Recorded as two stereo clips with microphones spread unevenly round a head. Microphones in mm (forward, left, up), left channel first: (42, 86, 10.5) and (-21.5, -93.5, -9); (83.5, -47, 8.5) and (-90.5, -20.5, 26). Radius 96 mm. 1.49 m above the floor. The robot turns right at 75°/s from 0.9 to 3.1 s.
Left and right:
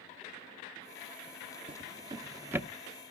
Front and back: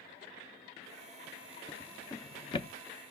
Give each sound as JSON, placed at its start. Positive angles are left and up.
{"t": 1.7, "sound": "a drawer", "azimuth_deg": -100, "distance_m": 0.6}